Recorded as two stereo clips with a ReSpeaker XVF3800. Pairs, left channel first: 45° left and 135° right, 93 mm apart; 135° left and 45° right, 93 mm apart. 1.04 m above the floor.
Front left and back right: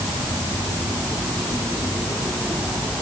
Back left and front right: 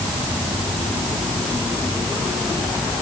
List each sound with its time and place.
Only background noise.